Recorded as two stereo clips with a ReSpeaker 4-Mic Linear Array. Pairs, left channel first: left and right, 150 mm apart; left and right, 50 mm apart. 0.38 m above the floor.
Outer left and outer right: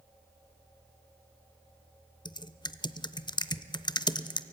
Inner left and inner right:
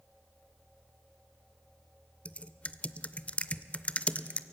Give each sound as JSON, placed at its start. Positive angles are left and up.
{"t": 2.2, "sound": "typing on a keyboard", "side_deg": 30, "distance_m": 0.6}